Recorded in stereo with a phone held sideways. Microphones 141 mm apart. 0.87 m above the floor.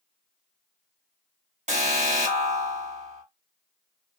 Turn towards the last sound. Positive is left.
turn(degrees=-55)  # may be behind; listen again after turning